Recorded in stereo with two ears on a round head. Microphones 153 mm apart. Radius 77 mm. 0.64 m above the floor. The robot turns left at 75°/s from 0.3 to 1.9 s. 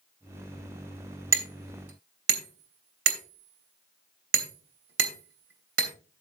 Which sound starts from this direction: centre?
Hammering, at 1.3 s.